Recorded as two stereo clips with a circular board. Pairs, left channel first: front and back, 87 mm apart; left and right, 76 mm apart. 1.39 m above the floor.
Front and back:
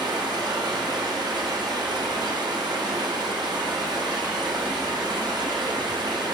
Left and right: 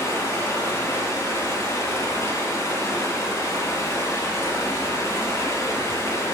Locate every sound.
0.0 s running water: 140° left, 1.4 m